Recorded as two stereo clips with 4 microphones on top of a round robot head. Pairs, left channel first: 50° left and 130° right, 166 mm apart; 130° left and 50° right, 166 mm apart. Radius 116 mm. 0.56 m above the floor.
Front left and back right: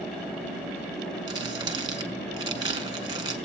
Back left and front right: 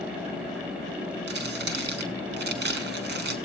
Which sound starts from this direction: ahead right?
Crumpling, at 1.3 s.